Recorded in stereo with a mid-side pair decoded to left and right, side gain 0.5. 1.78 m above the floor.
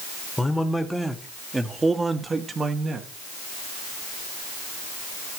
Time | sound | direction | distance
0.4 | a man speaking | 10° left | 2 m